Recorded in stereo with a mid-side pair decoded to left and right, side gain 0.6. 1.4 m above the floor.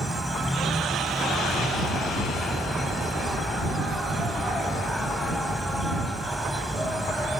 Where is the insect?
Straight ahead.